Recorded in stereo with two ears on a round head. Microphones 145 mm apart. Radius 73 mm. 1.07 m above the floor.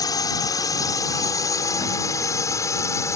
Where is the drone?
25° left (ahead or behind); by 3.2 s 20° left (ahead or behind).